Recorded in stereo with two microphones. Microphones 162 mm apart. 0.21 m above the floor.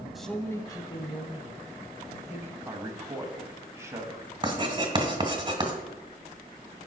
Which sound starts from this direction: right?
Writing, at 4.4 s.